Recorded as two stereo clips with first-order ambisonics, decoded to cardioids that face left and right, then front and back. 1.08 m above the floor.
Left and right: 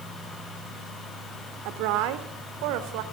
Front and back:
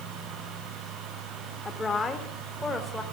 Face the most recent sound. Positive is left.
turn(degrees=-85)